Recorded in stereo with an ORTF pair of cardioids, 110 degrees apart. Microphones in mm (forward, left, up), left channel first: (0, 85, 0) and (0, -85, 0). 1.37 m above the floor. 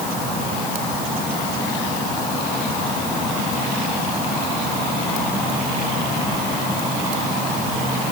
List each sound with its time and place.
Only background noise.